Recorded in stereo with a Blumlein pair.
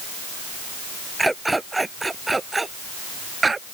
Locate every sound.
1.2 s a dog barking: 5° right; by 3.7 s 10° right